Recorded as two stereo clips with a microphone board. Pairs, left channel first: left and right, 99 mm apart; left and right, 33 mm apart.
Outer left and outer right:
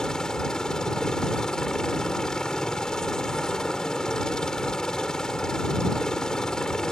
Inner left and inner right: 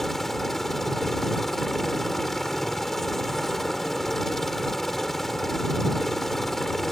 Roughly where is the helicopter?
Centre.